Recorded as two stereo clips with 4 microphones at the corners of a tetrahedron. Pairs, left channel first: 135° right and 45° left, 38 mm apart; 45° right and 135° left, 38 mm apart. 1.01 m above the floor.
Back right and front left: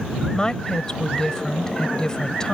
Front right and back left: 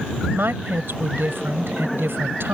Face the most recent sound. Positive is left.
turn(degrees=155)